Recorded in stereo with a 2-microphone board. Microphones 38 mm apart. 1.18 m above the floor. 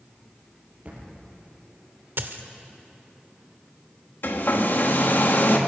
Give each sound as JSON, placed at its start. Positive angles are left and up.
{"t": 0.8, "sound": "a thud", "side_deg": -35, "distance_m": 6.0}
{"t": 2.2, "sound": "a dropped coin", "side_deg": -65, "distance_m": 1.4}
{"t": 4.2, "sound": "a hair dryer", "side_deg": 55, "distance_m": 1.7}